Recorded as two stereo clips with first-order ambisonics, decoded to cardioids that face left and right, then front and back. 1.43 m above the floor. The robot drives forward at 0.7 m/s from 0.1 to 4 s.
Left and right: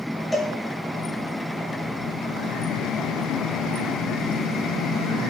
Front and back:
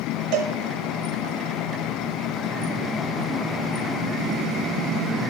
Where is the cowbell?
170° left, 1.1 m; by 0.5 s 175° left, 1.2 m.